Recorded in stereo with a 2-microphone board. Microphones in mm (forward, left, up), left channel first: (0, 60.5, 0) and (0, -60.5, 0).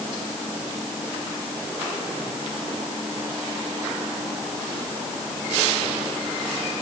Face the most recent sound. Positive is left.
No sound to turn to.